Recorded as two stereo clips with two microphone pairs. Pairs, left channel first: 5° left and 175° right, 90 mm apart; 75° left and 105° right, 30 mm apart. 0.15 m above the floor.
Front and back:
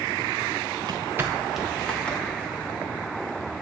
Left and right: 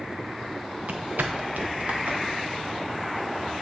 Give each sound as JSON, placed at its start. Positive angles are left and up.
{"t": 0.8, "sound": "footsteps", "azimuth_deg": -145, "distance_m": 0.7}